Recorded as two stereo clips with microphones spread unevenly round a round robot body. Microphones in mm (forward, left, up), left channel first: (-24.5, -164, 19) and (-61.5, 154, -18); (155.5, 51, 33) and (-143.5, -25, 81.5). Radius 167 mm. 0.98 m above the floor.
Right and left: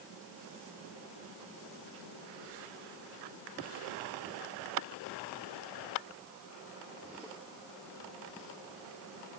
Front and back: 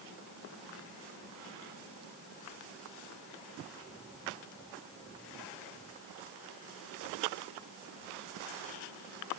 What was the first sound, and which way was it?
Only background noise.